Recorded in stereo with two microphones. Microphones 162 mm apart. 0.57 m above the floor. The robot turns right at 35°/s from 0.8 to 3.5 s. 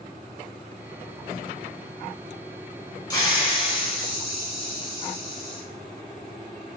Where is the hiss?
25° left (ahead or behind), 1.4 m; by 5.6 s 35° left (ahead or behind), 1.4 m.